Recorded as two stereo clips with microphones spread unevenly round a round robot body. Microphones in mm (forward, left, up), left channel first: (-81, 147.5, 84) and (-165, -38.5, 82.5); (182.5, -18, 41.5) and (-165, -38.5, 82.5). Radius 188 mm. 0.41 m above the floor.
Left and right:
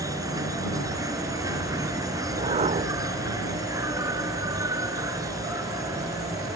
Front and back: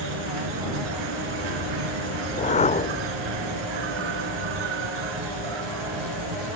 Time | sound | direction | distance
0.0 | an insect | 170° left | ?
2.2 | a whoosh | 60° right | ?